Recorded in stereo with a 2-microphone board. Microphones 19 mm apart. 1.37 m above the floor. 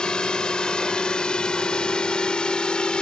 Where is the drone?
45° left (ahead or behind); by 3.0 s 50° left (ahead or behind).